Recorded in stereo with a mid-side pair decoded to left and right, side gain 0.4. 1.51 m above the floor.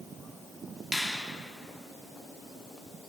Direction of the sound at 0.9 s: 5° left.